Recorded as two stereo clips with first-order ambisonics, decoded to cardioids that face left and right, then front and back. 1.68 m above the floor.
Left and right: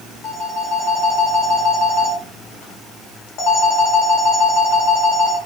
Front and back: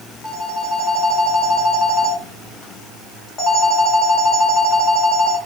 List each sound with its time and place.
0.2 s a phone ringing: 75° left, 1.0 m